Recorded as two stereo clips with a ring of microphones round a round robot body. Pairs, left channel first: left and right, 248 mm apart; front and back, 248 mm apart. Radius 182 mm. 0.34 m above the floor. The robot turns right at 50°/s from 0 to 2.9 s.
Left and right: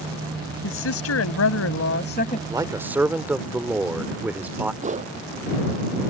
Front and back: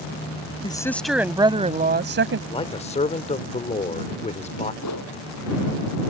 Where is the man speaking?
35° right; by 4.7 s 15° right.